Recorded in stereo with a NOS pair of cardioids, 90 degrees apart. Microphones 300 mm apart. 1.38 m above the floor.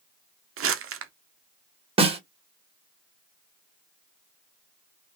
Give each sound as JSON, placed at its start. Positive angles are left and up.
{"t": 0.6, "sound": "crumpling", "azimuth_deg": -50, "distance_m": 0.7}
{"t": 2.0, "sound": "a snare drum", "azimuth_deg": -20, "distance_m": 1.3}